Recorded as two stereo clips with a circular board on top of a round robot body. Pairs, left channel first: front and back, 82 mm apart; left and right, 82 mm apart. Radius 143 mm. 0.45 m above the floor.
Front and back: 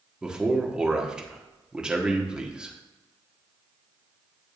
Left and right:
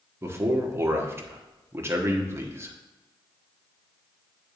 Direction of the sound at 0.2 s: 110° right.